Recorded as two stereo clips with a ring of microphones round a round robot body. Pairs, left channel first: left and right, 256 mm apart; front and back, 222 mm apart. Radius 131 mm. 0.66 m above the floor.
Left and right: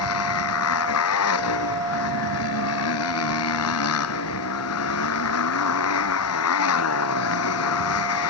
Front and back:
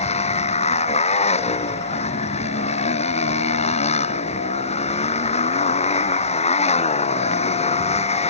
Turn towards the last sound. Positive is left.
turn(degrees=60)